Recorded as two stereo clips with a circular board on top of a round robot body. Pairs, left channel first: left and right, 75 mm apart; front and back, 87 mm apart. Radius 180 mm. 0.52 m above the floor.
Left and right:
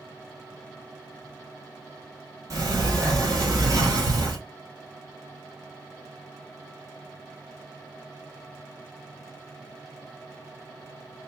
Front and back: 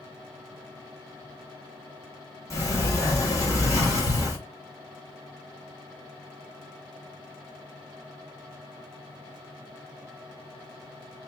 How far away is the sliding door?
About 1.7 m.